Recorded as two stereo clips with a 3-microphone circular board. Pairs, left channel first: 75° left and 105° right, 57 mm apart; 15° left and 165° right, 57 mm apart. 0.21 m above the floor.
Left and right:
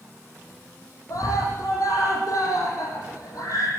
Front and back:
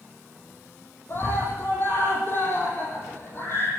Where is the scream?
60° left, 7.5 m.